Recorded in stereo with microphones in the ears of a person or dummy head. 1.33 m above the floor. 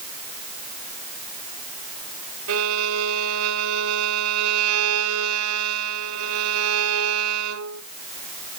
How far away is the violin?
About 2 m.